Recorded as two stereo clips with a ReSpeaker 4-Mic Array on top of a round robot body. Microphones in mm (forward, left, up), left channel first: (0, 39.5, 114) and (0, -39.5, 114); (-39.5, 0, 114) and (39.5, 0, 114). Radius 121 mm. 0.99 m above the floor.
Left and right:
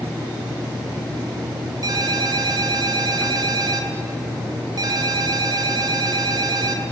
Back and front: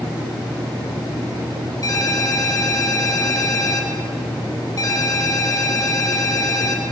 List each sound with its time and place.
1.8 s a ringtone: 135° right, 2 m